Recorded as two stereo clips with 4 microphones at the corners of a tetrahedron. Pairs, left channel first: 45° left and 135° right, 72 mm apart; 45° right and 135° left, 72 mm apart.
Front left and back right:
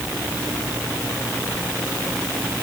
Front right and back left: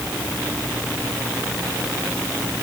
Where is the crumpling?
No crumpling in this recording.